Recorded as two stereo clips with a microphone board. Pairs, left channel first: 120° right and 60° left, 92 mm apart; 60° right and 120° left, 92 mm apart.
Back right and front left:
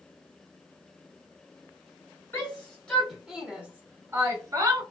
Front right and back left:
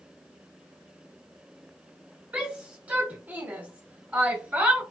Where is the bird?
I don't hear a bird.